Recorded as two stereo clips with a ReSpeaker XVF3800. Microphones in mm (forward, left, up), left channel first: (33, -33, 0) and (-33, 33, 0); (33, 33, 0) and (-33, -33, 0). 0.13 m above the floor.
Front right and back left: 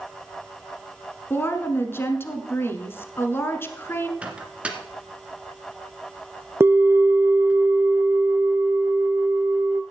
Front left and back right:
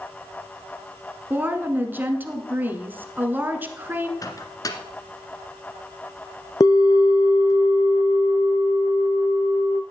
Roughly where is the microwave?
Ahead left.